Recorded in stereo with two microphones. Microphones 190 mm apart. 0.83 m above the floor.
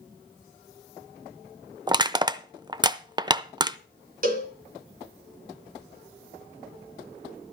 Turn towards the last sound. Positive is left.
turn(degrees=-50)  # may be behind; listen again after turning